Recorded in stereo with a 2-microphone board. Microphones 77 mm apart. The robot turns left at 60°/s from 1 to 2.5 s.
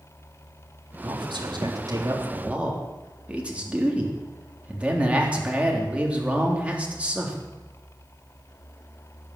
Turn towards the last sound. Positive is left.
turn(degrees=-165)